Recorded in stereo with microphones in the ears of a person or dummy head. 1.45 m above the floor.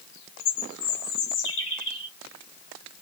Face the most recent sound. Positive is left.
turn(degrees=70)  # may be behind; listen again after turning